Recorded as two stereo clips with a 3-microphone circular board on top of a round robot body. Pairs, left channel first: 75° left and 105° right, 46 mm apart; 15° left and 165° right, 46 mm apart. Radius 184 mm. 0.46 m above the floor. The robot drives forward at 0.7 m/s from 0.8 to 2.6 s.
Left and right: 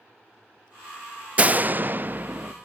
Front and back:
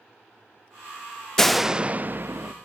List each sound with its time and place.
1.4 s a door slam: 60° right, 0.7 m; by 2.5 s 155° right, 0.9 m